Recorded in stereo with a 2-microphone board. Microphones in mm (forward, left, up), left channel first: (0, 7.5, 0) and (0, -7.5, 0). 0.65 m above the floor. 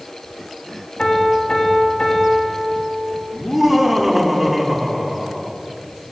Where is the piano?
70° left (ahead or behind), 3 m.